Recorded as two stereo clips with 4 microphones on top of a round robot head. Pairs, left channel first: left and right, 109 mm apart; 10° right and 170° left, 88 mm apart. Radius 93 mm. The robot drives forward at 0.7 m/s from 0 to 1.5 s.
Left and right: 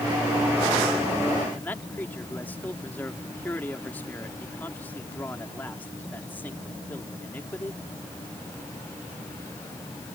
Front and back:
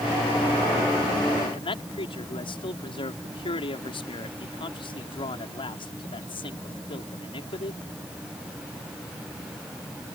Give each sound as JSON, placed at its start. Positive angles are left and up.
{"t": 1.5, "sound": "a man speaking", "azimuth_deg": 15}